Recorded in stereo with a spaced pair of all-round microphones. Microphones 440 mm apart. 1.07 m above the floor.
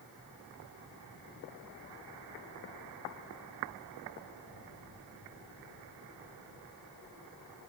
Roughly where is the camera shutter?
No camera shutter in this recording.